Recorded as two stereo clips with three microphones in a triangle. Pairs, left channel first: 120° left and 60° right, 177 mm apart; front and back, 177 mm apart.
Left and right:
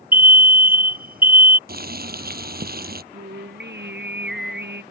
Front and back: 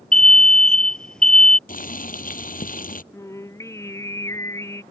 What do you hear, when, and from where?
0.1 s an alarm: 85° right
1.7 s boiling: 35° right
3.1 s singing: 75° right